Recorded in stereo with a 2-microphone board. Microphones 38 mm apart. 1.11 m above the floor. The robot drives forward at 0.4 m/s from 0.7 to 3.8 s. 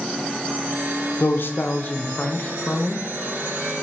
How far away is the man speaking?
About 0.6 m.